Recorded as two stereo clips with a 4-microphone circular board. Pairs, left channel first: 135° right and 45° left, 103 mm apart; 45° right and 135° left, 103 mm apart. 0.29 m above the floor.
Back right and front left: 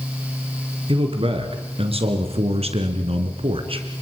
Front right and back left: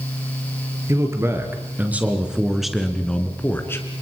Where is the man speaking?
75° left, 4 m; by 4.0 s 15° left, 3 m.